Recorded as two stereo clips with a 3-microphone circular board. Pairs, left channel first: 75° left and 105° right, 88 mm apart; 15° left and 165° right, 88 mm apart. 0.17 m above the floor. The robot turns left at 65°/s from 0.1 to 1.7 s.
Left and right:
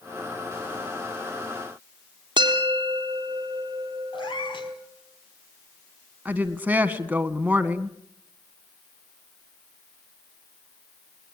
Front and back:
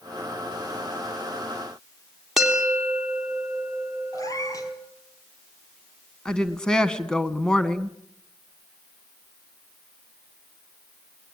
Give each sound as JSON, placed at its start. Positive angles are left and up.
{"t": 2.4, "sound": "a bell", "azimuth_deg": -80, "distance_m": 3.5}
{"t": 4.1, "sound": "a cat meowing", "azimuth_deg": 60, "distance_m": 2.5}
{"t": 6.2, "sound": "a woman speaking", "azimuth_deg": -60, "distance_m": 1.4}